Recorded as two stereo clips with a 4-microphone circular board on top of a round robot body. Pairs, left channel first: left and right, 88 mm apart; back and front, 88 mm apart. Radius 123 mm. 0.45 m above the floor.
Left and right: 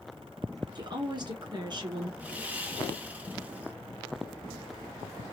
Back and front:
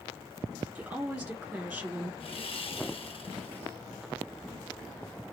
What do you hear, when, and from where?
0.8 s a woman speaking: 80° right, 1.8 m
2.2 s sawing: 165° right, 1.2 m